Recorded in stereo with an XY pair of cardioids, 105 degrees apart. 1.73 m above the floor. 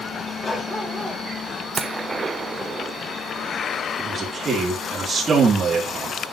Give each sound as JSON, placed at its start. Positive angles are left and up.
{"t": 0.4, "sound": "a dog barking", "azimuth_deg": 20, "distance_m": 3.5}
{"t": 1.8, "sound": "a gunshot", "azimuth_deg": -30, "distance_m": 1.0}
{"t": 4.0, "sound": "a man speaking", "azimuth_deg": -35, "distance_m": 4.0}